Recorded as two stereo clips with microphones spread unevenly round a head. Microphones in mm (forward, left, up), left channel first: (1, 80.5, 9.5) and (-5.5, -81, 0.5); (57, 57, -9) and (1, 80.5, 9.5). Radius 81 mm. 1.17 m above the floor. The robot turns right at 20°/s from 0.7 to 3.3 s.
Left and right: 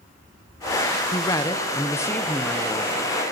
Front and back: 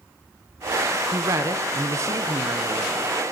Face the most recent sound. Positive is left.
turn(degrees=-175)